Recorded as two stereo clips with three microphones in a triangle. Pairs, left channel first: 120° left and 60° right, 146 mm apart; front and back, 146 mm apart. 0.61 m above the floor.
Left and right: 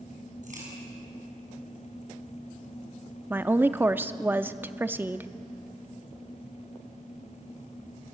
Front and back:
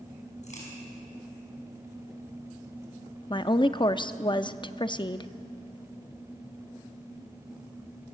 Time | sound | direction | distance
0.4 | a crack | 35° right | 6 m
3.3 | a woman speaking | straight ahead | 0.6 m